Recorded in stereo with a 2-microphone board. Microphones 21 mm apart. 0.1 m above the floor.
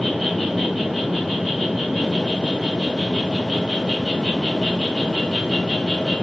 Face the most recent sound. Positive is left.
turn(degrees=5)  # may be behind; listen again after turning